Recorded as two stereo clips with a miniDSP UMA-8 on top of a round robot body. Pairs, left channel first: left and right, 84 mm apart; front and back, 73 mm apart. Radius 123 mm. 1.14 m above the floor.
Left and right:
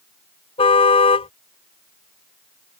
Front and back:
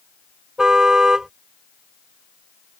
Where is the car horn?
95° left.